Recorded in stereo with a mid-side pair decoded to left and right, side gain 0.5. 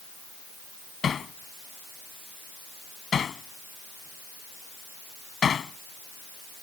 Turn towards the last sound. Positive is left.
turn(degrees=40)